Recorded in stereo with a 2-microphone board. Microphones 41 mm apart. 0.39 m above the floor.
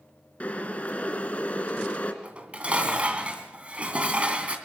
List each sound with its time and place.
0.4 s boiling: 35° left (ahead or behind), 2 m
2.2 s dishes clattering: 30° right (ahead or behind), 2.5 m